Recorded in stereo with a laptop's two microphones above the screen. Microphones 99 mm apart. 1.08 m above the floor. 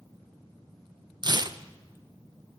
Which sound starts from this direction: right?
Tearing paper, at 1.2 s.